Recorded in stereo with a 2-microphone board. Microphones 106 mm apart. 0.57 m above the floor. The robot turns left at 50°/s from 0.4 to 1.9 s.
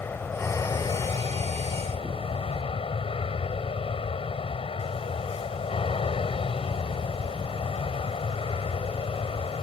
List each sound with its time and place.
0.0 s an aircraft: 155° left; by 9.6 s 80° left